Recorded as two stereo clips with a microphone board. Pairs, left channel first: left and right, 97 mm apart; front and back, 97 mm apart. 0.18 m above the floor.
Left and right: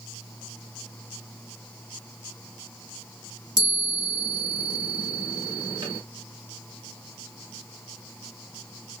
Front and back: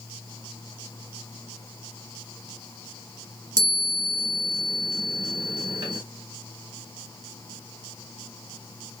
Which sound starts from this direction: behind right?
A chime, at 3.6 s.